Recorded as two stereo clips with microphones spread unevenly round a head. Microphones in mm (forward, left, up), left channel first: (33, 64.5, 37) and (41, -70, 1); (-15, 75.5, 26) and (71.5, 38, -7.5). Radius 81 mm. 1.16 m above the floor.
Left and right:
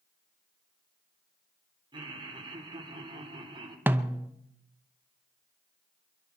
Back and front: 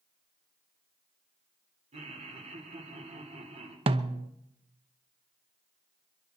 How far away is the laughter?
About 3.5 m.